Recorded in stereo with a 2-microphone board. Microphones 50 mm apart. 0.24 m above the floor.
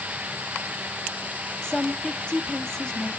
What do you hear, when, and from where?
1.6 s a woman speaking: 15° left (ahead or behind), 1.0 m